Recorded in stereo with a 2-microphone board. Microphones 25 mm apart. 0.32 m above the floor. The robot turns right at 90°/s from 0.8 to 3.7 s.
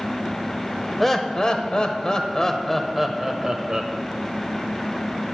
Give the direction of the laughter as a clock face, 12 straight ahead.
12 o'clock.